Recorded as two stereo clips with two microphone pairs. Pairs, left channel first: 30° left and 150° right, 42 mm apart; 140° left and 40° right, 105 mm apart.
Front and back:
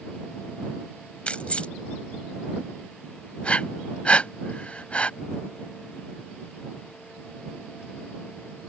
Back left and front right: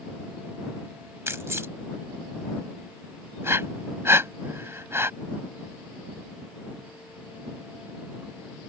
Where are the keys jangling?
Straight ahead.